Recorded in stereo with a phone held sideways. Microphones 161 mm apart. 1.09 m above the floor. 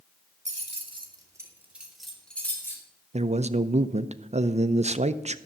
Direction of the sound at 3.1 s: 45° right (ahead or behind).